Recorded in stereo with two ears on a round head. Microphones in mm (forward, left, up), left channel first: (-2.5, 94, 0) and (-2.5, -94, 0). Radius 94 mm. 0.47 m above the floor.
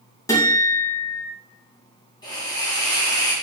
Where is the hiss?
20° left (ahead or behind), 4 m.